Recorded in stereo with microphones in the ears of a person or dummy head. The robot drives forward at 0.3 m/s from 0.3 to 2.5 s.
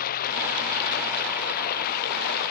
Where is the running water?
55° left (ahead or behind).